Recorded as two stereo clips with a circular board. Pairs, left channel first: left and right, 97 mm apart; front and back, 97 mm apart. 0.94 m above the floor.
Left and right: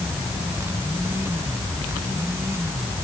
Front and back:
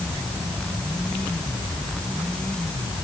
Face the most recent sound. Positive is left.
No sound to turn to.